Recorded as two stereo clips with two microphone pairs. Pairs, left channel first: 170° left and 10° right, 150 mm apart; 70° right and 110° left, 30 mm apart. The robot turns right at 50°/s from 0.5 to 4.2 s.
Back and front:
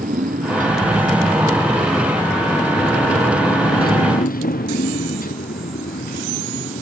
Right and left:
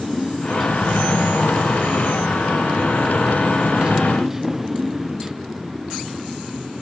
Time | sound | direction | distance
0.0 | a motorcycle | 15° left | ?